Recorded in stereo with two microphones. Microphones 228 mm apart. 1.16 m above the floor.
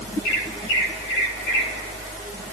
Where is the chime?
I don't hear a chime.